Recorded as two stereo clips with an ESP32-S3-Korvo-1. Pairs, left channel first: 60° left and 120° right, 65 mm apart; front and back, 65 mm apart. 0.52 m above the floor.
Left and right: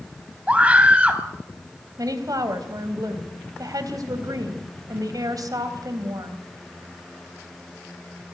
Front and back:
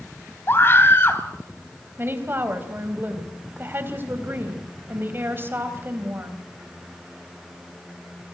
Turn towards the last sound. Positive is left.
turn(degrees=-125)